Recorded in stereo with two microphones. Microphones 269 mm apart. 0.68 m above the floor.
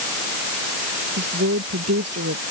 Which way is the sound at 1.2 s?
65° right (ahead or behind).